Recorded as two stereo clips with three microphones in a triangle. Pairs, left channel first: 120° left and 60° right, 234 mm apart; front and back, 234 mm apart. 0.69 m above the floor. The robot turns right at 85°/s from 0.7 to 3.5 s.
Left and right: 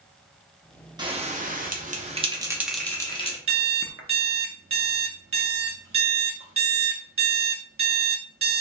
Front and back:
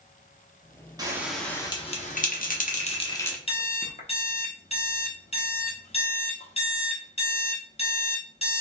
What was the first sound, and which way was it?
A bell, 120° right.